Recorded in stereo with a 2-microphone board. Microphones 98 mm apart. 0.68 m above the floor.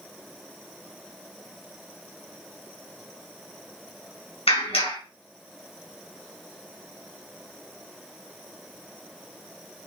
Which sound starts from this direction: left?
A clap, at 4.5 s.